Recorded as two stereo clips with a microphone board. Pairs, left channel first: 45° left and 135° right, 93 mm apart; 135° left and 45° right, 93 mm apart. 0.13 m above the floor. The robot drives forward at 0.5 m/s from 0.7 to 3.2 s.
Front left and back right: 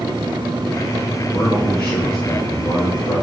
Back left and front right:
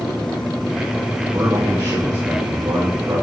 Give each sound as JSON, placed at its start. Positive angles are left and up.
{"t": 1.3, "sound": "a man speaking", "azimuth_deg": -10, "distance_m": 3.5}